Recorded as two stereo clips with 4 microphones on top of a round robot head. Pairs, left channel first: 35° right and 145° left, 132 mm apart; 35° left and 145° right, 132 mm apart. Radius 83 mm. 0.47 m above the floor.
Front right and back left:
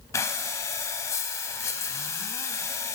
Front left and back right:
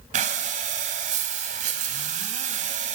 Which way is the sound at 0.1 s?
105° right.